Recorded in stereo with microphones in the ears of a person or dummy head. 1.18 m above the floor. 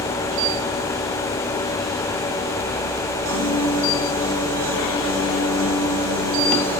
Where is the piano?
75° right (ahead or behind), 4.5 m.